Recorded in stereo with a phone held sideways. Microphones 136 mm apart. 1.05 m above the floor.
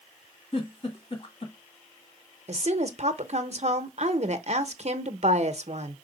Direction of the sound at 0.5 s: 45° left (ahead or behind).